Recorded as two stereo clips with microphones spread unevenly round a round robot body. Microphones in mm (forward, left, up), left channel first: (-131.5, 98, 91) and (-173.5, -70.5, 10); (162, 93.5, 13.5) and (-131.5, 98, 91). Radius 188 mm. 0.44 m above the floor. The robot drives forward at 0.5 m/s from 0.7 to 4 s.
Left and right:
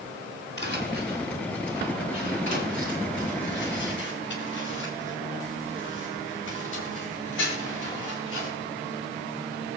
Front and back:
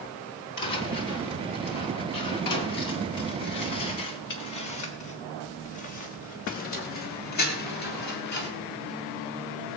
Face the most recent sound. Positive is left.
turn(degrees=30)